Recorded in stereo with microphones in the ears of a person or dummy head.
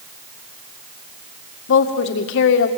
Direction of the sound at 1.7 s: 70° left (ahead or behind).